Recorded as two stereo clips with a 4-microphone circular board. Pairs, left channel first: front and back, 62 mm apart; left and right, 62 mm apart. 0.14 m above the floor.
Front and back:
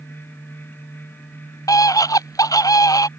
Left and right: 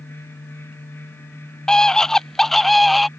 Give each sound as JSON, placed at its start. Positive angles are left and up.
{"t": 1.7, "sound": "a scream", "azimuth_deg": 10}